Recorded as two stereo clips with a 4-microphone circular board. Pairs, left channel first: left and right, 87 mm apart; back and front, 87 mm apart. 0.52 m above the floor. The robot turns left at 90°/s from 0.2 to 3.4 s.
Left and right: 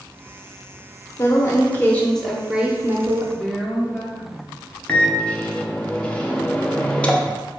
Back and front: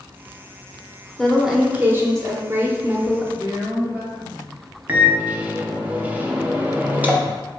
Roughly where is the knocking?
I don't hear knocking.